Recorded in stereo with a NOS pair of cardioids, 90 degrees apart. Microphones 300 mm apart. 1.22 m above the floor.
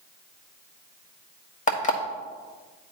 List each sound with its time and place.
1.7 s an alarm clock: 30° left, 1.4 m